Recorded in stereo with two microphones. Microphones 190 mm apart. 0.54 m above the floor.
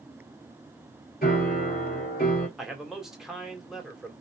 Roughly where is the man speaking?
Centre.